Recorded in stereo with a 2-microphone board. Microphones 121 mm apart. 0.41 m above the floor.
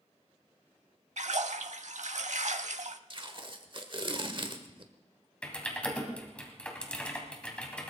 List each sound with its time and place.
1.2 s a splash: 75° right (ahead or behind), 0.6 m
3.1 s tape being pulled: 45° right (ahead or behind), 1.2 m
5.4 s typing on a keyboard: 10° left (ahead or behind), 2.5 m